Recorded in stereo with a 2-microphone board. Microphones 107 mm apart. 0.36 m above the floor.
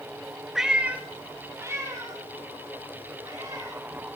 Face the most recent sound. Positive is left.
turn(degrees=-35)  # may be behind; listen again after turning